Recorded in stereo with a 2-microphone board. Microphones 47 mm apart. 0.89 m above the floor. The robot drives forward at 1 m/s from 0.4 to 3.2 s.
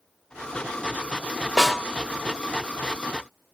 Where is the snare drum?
5° left (ahead or behind), 1.7 m.